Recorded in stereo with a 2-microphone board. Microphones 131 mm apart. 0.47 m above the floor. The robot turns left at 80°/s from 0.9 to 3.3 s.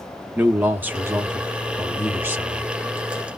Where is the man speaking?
15° right (ahead or behind), 0.8 m; by 2.7 s centre (ahead or behind), 0.8 m.